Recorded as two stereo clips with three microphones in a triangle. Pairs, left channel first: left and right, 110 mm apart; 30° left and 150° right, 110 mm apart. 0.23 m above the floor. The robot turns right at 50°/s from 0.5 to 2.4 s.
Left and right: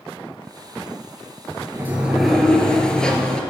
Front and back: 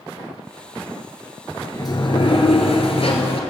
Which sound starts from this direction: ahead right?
A sliding door, at 1.7 s.